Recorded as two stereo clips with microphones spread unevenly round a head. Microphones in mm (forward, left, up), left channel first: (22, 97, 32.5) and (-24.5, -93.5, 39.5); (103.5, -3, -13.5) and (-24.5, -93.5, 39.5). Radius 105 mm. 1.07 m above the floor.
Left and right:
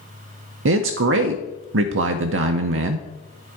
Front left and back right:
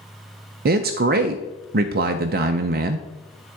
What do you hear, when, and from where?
0.7 s a man speaking: 110° right, 0.5 m